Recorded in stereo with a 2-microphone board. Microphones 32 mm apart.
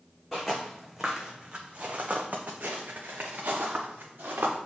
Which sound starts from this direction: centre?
Footsteps, at 0.3 s.